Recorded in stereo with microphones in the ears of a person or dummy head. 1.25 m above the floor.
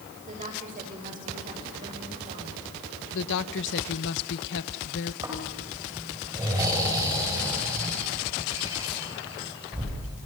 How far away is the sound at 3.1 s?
About 1.2 m.